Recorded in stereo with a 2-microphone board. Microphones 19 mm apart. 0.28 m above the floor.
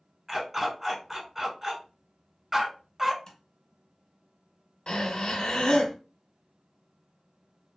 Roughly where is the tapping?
Left.